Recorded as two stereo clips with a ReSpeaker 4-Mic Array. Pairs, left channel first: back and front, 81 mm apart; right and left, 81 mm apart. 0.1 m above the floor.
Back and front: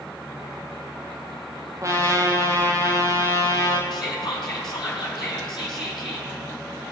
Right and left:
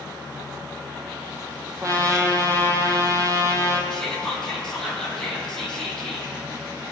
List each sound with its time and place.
1.8 s a trumpet: 45° left, 1.5 m
3.9 s whispering: 175° right, 3.5 m